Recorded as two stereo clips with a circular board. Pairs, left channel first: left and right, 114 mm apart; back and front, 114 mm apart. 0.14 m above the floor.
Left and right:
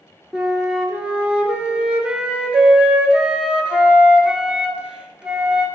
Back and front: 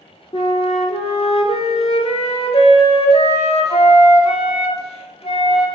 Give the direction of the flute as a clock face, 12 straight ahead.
6 o'clock.